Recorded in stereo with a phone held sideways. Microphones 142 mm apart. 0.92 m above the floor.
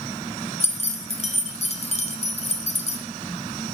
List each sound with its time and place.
0.6 s keys jangling: 50° left (ahead or behind), 0.7 m